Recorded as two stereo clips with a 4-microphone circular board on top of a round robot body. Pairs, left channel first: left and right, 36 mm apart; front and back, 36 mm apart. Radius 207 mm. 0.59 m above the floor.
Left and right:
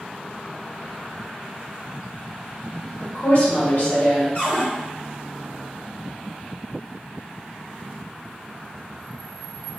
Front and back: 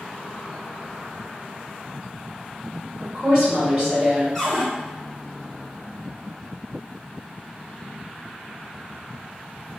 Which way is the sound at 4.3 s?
75° left.